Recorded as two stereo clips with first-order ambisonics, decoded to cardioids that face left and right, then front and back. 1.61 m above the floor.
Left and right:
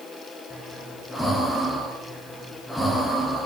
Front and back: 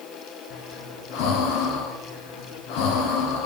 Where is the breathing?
5° left, 0.8 m.